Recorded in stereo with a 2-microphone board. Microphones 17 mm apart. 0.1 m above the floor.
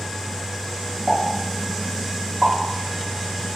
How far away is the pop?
About 1.3 m.